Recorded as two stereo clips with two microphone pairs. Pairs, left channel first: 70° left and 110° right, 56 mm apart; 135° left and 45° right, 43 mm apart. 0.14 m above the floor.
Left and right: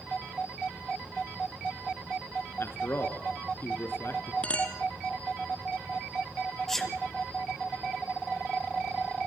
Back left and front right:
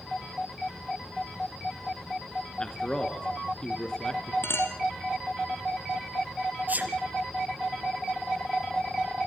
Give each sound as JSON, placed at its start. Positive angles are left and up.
{"t": 2.6, "sound": "a man speaking", "azimuth_deg": 65, "distance_m": 2.5}
{"t": 4.4, "sound": "a clink", "azimuth_deg": 135, "distance_m": 2.5}
{"t": 6.7, "sound": "a sneeze", "azimuth_deg": -10, "distance_m": 3.5}